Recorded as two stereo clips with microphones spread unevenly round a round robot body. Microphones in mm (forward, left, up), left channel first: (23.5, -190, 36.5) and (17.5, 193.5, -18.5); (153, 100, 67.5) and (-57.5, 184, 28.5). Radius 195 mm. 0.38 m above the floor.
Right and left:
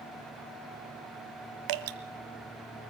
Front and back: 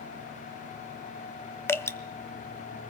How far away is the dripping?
About 1.2 m.